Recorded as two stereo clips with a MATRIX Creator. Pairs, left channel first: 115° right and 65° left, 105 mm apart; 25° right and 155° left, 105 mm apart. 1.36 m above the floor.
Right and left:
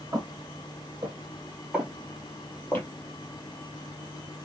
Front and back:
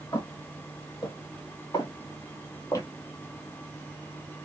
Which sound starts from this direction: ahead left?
Footsteps, at 0.1 s.